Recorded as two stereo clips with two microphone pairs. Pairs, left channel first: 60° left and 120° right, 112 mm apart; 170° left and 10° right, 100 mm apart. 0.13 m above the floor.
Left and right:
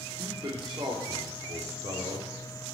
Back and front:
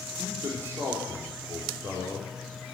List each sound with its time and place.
0.2 s a man speaking: 75° right, 4 m